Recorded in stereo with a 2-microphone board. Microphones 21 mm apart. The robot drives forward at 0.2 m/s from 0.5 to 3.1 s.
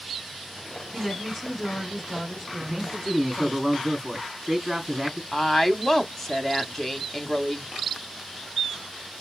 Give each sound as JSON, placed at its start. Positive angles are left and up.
{"t": 0.9, "sound": "a woman speaking", "side_deg": 5, "distance_m": 3.5}
{"t": 2.6, "sound": "a man speaking", "side_deg": -10, "distance_m": 3.5}
{"t": 5.3, "sound": "a woman speaking", "side_deg": 15, "distance_m": 0.9}